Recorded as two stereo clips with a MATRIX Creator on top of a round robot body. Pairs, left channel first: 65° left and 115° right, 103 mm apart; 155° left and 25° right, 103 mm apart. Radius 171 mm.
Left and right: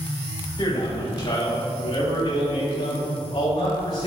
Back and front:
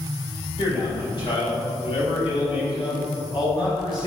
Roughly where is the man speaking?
Behind left.